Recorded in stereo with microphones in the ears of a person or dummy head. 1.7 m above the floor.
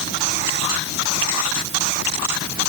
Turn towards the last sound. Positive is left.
No sound to turn to.